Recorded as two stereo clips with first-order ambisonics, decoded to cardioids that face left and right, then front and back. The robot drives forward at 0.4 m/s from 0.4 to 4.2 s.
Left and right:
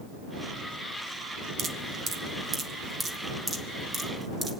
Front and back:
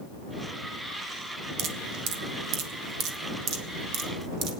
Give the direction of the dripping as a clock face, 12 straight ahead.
5 o'clock.